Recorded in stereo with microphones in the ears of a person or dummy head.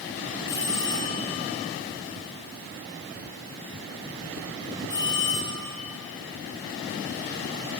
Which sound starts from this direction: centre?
A bell, at 0.5 s.